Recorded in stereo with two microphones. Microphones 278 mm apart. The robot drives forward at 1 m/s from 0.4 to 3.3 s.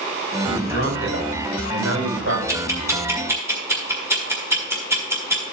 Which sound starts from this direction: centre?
Ticking, at 2.5 s.